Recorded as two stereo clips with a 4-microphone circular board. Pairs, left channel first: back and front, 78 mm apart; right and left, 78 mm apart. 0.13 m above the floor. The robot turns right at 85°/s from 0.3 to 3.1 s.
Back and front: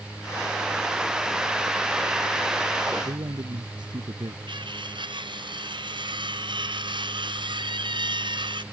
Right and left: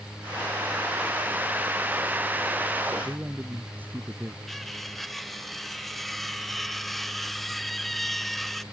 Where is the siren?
I don't hear a siren.